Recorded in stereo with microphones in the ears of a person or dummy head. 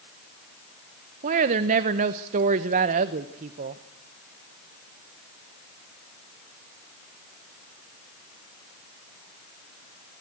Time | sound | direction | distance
1.2 | a woman speaking | 40° right (ahead or behind) | 0.9 m